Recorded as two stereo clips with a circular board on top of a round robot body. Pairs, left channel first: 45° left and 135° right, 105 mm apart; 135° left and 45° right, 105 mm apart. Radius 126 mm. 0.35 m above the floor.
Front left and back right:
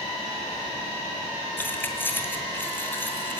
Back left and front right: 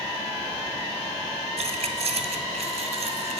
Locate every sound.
1.6 s keys jangling: 25° right, 2.5 m